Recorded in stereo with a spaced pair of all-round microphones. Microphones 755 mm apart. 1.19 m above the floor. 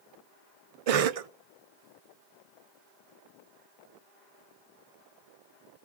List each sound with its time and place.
0.9 s a cough: 55° right (ahead or behind), 0.5 m